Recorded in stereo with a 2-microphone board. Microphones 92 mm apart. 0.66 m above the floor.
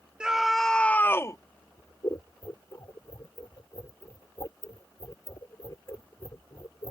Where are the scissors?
45° left (ahead or behind).